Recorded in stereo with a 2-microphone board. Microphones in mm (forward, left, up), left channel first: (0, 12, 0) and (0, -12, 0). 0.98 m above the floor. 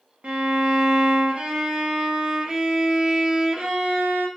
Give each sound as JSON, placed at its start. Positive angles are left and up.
{"t": 0.2, "sound": "a violin", "side_deg": -50, "distance_m": 0.6}